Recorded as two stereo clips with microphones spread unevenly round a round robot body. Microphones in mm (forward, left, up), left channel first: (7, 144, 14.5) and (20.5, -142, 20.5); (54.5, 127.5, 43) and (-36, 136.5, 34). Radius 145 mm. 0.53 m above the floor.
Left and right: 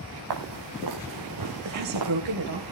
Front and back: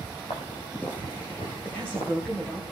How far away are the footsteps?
About 4.5 m.